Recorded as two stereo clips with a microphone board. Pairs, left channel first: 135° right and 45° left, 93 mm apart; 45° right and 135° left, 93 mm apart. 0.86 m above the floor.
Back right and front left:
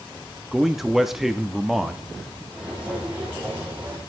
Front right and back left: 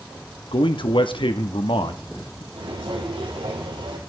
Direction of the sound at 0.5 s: 40° right.